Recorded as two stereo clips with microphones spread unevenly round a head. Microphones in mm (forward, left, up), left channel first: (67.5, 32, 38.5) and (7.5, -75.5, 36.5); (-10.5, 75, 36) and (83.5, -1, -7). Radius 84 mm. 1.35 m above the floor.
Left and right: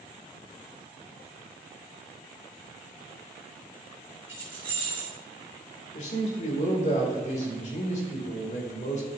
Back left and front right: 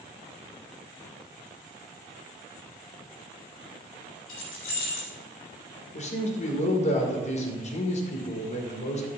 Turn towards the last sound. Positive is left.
turn(degrees=105)